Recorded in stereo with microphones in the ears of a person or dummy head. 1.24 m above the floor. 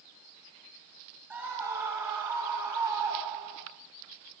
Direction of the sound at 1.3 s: 10° right (ahead or behind).